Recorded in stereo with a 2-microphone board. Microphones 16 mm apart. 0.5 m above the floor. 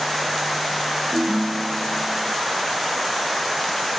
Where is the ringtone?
50° right (ahead or behind), 1.7 m.